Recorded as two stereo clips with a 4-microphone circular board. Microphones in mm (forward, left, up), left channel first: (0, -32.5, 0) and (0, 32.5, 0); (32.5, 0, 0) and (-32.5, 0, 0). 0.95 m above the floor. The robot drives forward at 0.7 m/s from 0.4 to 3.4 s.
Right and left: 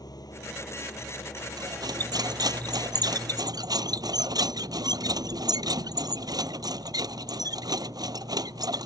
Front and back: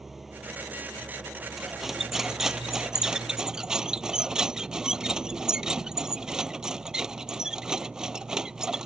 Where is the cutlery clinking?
90° left; by 8.9 s 100° left.